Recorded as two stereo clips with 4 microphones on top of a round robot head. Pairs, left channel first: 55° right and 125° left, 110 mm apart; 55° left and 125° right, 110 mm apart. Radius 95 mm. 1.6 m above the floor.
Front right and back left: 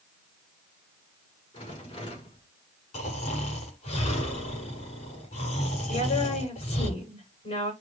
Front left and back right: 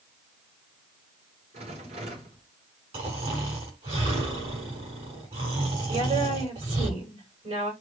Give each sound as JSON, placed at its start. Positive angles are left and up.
{"t": 1.5, "sound": "a rattle", "azimuth_deg": -95, "distance_m": 5.5}
{"t": 2.9, "sound": "snoring", "azimuth_deg": -85, "distance_m": 8.5}
{"t": 5.9, "sound": "a woman speaking", "azimuth_deg": -85, "distance_m": 9.5}